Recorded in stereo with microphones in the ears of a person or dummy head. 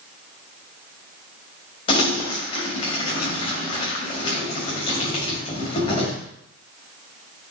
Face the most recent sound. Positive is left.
turn(degrees=40)  # may be behind; listen again after turning